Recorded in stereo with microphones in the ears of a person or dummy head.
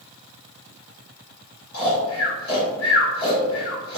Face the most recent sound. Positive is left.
turn(degrees=75)  # may be behind; listen again after turning